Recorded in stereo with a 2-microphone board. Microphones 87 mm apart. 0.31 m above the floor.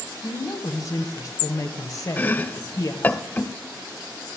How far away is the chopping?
About 0.6 m.